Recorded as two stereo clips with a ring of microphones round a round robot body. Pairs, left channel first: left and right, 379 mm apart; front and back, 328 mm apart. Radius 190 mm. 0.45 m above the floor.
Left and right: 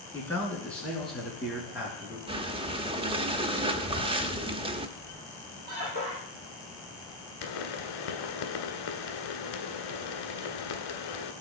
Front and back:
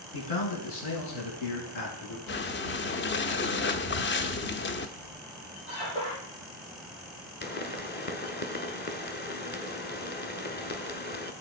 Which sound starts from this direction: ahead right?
Breathing, at 2.3 s.